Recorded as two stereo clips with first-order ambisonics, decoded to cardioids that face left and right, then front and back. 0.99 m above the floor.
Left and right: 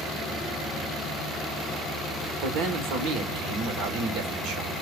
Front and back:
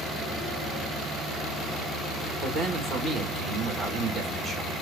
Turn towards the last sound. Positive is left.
turn(degrees=-110)